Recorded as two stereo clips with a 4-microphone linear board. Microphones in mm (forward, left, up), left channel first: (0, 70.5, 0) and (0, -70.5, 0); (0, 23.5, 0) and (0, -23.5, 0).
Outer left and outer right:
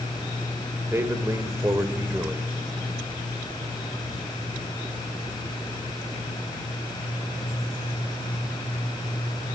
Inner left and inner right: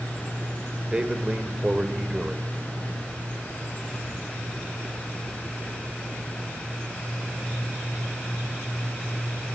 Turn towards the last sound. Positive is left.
turn(degrees=-20)  # may be behind; listen again after turning